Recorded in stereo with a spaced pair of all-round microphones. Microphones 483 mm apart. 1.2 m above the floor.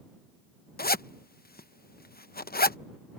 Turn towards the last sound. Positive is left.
turn(degrees=20)  # may be behind; listen again after turning